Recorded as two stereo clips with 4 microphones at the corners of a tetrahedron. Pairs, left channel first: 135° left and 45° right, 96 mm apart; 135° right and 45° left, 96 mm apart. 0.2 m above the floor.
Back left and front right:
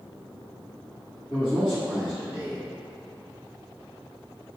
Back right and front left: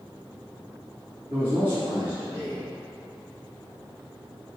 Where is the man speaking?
40° left, 1.8 m.